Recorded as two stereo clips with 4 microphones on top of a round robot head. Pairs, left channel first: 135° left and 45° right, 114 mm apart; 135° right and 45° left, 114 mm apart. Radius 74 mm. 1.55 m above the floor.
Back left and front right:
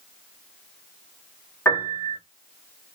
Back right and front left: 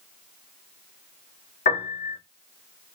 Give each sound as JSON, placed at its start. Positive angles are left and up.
{"t": 1.6, "sound": "a piano", "azimuth_deg": -150, "distance_m": 1.4}